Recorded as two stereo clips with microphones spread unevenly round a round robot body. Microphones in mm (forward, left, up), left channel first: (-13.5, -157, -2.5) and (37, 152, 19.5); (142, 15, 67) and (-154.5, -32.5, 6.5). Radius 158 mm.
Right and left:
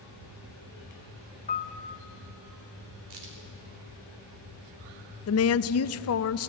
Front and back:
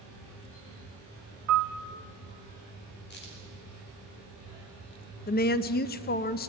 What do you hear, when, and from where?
1.5 s a piano: 165° right, 0.9 m
3.1 s a crack: 70° left, 4 m
5.3 s a woman speaking: 55° right, 0.6 m